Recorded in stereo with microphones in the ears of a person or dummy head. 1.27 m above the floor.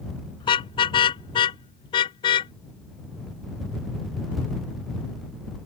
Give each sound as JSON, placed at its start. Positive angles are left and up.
{"t": 0.4, "sound": "a car horn", "side_deg": 25}